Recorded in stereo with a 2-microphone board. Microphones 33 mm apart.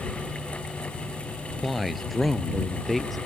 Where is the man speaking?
Centre (ahead or behind).